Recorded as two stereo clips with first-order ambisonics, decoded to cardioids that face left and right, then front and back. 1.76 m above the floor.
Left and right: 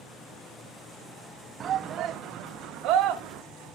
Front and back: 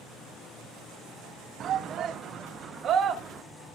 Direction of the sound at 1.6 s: 140° right.